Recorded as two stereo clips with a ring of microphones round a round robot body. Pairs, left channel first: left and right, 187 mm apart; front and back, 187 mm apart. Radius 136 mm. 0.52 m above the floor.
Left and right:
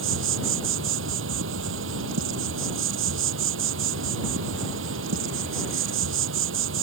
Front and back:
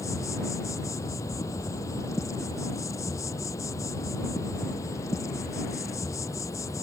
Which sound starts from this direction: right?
An insect, at 0.0 s.